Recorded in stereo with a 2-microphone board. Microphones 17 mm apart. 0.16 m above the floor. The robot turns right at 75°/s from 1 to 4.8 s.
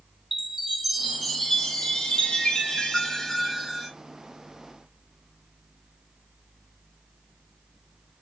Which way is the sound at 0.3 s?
10° right.